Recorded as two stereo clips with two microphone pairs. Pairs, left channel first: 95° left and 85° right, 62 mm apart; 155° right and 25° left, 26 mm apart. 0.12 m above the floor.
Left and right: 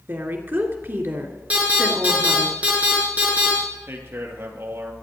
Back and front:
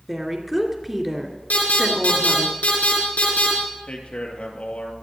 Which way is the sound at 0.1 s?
50° right.